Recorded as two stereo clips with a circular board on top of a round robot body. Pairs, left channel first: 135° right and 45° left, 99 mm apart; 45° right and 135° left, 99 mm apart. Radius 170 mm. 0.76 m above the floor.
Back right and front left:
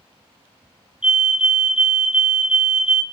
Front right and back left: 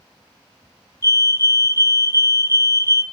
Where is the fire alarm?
25° right, 1.7 m.